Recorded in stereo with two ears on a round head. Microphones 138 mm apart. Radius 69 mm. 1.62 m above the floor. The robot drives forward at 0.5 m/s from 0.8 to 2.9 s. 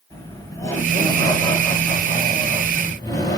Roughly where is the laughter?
Centre.